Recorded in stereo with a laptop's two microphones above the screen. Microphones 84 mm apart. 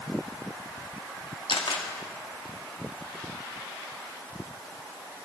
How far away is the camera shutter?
About 1.3 m.